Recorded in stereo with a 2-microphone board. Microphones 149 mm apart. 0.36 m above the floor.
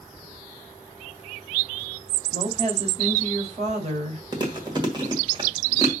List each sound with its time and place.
2.3 s a woman speaking: 45° right (ahead or behind), 2 m
4.3 s chewing: 30° right (ahead or behind), 1.7 m